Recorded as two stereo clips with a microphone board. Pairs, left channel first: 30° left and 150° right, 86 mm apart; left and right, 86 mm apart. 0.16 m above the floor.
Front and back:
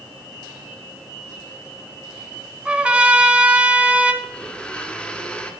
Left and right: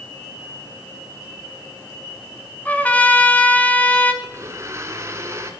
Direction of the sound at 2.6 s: 145° left.